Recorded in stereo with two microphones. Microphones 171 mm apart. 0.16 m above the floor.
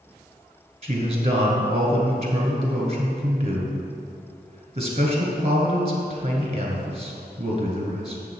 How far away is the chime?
No chime in this recording.